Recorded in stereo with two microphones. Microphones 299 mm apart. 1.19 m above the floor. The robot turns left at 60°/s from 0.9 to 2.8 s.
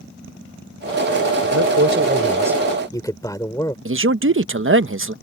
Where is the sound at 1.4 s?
110° right; by 3.8 s 170° left.